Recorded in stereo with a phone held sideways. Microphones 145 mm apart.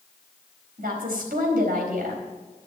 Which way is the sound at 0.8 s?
75° right (ahead or behind).